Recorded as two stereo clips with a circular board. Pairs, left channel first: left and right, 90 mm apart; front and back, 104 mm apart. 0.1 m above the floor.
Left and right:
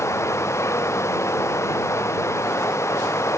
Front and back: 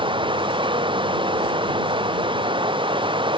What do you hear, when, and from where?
0.0 s running water: 145° left